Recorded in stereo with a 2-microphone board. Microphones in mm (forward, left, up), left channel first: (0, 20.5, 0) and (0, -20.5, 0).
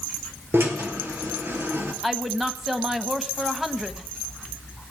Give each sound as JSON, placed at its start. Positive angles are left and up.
{"t": 0.5, "sound": "a drill", "side_deg": -60, "distance_m": 3.0}
{"t": 2.0, "sound": "a woman speaking", "side_deg": -5, "distance_m": 1.1}